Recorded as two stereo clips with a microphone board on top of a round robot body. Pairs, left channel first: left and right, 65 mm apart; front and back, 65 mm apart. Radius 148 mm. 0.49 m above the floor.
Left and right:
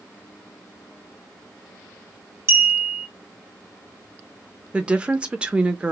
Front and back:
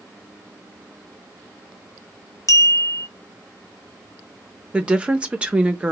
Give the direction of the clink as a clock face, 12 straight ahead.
1 o'clock.